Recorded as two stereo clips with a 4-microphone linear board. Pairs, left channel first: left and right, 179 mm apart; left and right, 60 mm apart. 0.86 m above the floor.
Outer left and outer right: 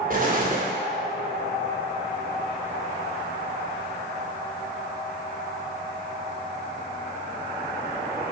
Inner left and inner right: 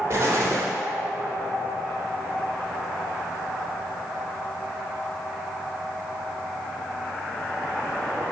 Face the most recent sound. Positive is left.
turn(degrees=-50)  # may be behind; listen again after turning